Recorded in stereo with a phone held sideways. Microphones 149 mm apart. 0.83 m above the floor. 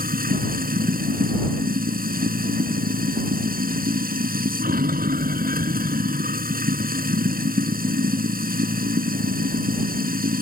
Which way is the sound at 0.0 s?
85° right.